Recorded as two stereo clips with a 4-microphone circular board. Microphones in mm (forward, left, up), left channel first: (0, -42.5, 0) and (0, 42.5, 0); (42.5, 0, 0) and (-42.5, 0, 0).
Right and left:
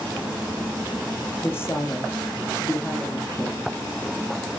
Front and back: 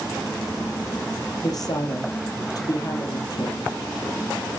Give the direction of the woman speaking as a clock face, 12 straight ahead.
1 o'clock.